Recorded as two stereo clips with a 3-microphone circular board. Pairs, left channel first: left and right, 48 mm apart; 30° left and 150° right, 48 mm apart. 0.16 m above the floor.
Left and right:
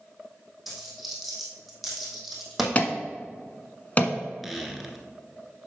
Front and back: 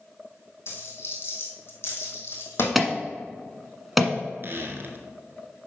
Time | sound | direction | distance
0.7 | a dropped coin | straight ahead | 2.5 m
2.8 | an alarm | 125° left | 1.2 m
4.4 | a squeak | straight behind | 1.2 m